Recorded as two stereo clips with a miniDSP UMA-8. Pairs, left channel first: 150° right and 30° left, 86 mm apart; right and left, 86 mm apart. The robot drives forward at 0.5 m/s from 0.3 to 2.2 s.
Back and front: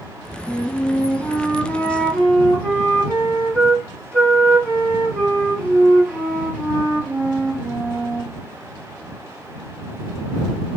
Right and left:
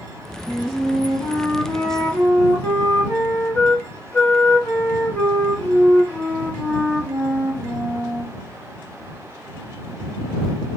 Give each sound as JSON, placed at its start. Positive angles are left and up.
{"t": 0.5, "sound": "a flute", "azimuth_deg": -45, "distance_m": 2.0}